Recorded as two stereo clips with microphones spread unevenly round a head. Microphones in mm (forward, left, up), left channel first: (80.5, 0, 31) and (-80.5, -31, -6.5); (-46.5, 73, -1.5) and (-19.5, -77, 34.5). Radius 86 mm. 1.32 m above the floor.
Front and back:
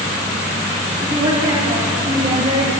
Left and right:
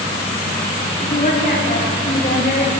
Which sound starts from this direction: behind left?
A woman speaking, at 1.0 s.